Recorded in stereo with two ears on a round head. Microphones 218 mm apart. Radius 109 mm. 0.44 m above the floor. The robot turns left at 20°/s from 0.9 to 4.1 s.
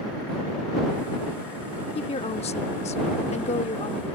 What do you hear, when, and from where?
1.9 s a woman speaking: 25° left (ahead or behind)